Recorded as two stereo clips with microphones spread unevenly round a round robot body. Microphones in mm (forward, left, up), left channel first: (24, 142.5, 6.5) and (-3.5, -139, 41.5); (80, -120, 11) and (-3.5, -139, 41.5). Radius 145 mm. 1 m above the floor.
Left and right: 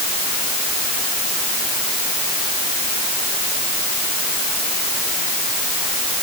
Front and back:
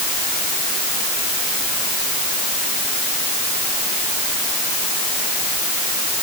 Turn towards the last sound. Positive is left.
No sound to turn to.